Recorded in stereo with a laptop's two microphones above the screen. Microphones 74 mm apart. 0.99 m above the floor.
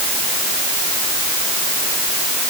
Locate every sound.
Only background noise.